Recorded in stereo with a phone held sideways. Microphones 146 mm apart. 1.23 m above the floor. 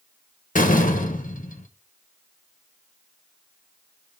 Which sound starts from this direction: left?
A door slam, at 0.6 s.